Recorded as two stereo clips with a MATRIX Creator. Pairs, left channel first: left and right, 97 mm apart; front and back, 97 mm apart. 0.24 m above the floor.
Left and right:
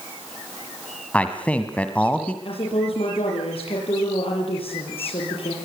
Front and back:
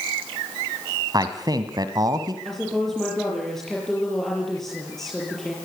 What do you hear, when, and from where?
1.1 s a man speaking: 160° left, 1.7 m
2.5 s a woman speaking: 85° left, 6.5 m